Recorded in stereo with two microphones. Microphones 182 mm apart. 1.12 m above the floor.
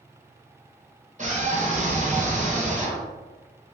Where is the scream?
45° right (ahead or behind), 1.0 m.